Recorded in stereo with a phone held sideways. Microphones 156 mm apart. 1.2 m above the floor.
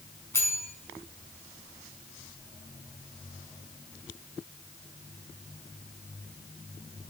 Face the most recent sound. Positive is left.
turn(degrees=15)  # may be behind; listen again after turning